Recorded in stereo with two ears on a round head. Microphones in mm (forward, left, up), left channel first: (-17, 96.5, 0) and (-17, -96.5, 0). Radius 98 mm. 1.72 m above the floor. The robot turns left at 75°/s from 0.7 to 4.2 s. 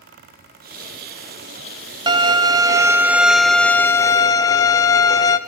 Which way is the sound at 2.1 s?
20° right (ahead or behind).